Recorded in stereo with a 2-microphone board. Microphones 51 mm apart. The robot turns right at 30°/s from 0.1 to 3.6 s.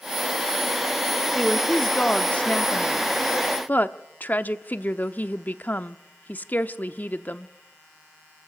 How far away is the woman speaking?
About 0.7 m.